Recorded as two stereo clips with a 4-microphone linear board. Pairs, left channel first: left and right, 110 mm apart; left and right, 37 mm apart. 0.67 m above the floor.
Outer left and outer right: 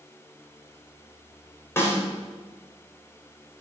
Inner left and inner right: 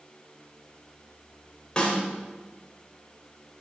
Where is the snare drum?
20° left (ahead or behind), 3.5 m.